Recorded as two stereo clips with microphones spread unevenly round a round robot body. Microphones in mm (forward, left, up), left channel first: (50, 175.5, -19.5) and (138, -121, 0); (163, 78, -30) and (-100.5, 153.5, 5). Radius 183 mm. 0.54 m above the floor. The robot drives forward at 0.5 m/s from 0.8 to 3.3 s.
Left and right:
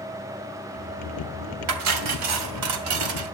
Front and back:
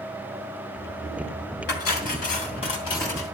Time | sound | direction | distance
1.7 | cutlery clinking | 80° right | 2 m